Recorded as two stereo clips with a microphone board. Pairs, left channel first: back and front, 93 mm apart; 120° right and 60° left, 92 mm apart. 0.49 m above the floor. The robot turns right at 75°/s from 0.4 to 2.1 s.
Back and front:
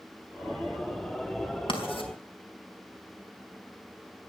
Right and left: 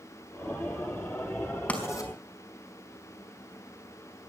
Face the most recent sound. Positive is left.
turn(degrees=-165)